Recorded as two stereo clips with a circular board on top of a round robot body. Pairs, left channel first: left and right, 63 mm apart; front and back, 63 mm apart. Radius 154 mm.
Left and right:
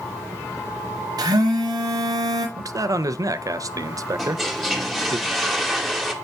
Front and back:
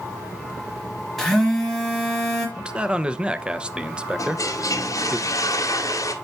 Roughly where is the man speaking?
Right.